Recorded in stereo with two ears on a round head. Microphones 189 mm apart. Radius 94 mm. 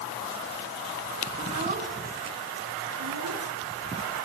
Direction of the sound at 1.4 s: 25° right (ahead or behind).